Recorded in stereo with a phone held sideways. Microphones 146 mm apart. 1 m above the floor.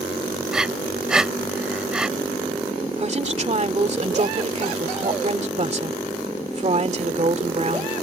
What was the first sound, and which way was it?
Breathing, 5° right (ahead or behind).